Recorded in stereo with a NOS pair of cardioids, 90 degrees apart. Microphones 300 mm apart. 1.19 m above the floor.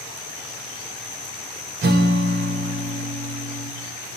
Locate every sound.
1.8 s a guitar: 30° right, 1.1 m